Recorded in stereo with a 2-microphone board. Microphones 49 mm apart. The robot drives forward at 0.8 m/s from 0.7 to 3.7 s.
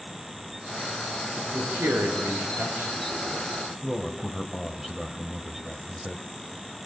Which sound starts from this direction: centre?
A man speaking, at 3.8 s.